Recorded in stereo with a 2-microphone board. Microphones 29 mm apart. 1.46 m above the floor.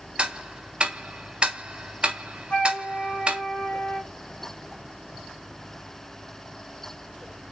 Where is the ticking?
35° right (ahead or behind), 0.5 m.